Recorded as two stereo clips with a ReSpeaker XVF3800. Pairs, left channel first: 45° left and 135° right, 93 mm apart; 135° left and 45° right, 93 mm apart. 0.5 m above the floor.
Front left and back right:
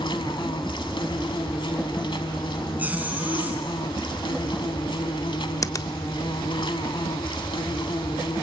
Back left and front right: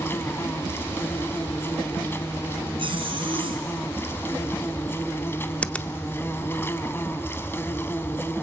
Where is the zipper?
60° right, 2 m.